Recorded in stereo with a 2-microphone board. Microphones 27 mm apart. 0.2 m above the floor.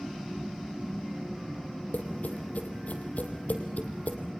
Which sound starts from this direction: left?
Tapping, at 1.9 s.